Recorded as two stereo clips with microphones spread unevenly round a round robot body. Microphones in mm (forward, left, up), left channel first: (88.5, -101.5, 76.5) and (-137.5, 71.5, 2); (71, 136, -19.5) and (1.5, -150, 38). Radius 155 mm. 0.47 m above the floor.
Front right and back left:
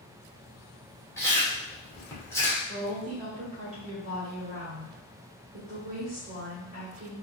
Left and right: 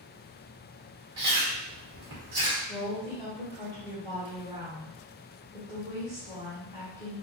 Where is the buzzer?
No buzzer in this recording.